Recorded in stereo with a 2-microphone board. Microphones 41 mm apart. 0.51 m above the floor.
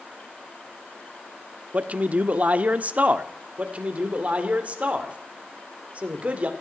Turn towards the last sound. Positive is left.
turn(degrees=-30)  # may be behind; listen again after turning